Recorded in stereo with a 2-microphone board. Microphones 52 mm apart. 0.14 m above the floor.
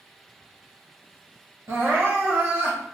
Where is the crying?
55° right (ahead or behind), 1.6 m.